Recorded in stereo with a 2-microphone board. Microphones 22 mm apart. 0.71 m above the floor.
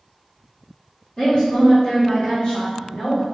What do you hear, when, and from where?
1.2 s a woman speaking: 25° left (ahead or behind), 1.4 m; by 3.2 s 50° left (ahead or behind), 1.6 m